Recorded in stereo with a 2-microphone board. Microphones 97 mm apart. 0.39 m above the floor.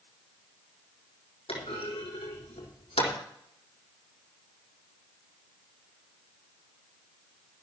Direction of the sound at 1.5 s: 80° left.